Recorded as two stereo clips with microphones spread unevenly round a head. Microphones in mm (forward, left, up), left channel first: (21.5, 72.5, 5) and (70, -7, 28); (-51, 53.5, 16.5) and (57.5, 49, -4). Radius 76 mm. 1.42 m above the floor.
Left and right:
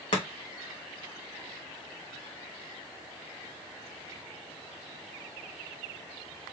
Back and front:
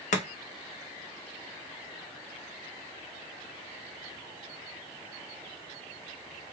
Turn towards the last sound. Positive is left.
turn(degrees=165)